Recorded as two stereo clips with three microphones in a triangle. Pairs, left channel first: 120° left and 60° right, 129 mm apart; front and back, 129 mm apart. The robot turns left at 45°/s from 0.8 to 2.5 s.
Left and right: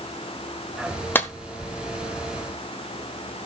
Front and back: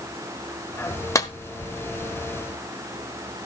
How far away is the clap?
About 1.3 m.